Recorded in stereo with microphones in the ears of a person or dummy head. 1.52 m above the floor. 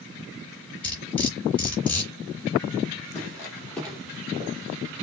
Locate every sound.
0.8 s cutlery clinking: 10° left (ahead or behind), 3 m
3.1 s footsteps: 15° left (ahead or behind), 3.5 m; by 4.5 s 10° right (ahead or behind), 2 m